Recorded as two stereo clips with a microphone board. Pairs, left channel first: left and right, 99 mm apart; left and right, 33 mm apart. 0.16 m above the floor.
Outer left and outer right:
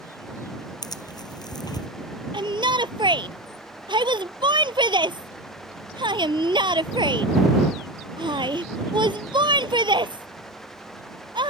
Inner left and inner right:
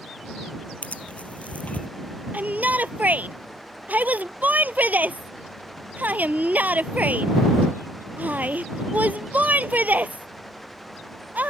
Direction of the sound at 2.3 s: 55° right (ahead or behind).